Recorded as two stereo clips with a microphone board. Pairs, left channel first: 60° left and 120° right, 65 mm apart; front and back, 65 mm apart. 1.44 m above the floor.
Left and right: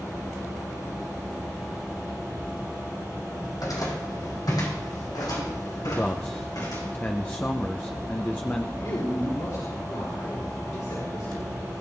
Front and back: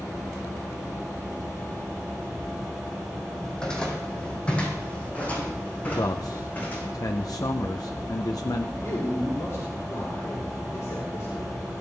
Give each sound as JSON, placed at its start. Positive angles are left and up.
{"t": 3.4, "sound": "footsteps", "azimuth_deg": 80, "distance_m": 4.0}
{"t": 5.9, "sound": "a man speaking", "azimuth_deg": 0, "distance_m": 0.7}
{"t": 8.8, "sound": "a man speaking", "azimuth_deg": 40, "distance_m": 4.0}